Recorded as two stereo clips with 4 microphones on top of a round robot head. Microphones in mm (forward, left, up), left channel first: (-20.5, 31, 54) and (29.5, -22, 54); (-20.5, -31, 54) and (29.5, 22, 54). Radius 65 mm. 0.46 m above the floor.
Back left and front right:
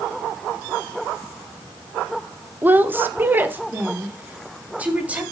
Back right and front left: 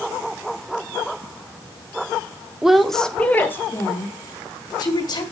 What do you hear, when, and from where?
2.6 s a woman speaking: 25° right, 0.9 m; by 5.2 s 115° right, 1.8 m